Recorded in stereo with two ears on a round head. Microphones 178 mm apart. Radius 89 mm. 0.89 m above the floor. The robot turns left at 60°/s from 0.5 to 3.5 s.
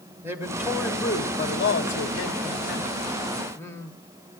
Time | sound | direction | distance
0.2 | a man speaking | 165° right | 1.9 m